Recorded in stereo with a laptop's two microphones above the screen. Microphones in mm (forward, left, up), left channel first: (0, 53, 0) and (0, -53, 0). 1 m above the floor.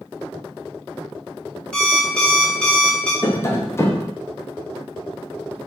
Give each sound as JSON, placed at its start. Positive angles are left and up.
{"t": 1.7, "sound": "an alarm clock", "side_deg": 10, "distance_m": 0.7}
{"t": 3.2, "sound": "tapping", "side_deg": 25, "distance_m": 0.6}